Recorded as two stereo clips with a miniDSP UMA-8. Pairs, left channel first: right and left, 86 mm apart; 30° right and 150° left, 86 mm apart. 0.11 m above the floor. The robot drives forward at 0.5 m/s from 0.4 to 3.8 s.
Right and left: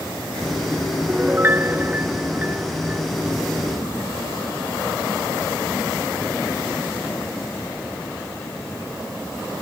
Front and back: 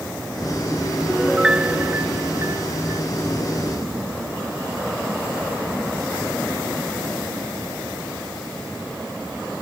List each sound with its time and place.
1.1 s a piano: 55° left; by 3.0 s 155° left